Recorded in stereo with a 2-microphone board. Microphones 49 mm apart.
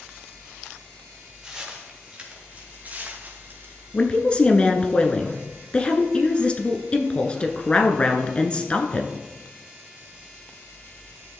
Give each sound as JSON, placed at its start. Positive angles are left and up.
{"t": 1.4, "sound": "footsteps", "side_deg": -15, "distance_m": 4.0}
{"t": 3.9, "sound": "a woman speaking", "side_deg": 25, "distance_m": 1.1}